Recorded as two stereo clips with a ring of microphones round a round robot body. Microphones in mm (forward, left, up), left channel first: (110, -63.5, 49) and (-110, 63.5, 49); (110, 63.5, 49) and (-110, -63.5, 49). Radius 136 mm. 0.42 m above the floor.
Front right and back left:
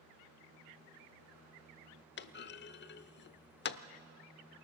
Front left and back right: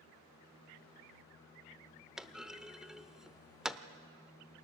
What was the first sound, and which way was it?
A clunk, 65° right.